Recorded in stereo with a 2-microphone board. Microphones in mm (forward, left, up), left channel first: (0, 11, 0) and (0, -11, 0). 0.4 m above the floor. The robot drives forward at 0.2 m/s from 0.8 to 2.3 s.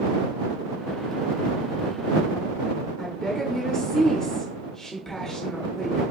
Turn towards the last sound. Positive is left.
turn(degrees=30)  # may be behind; listen again after turning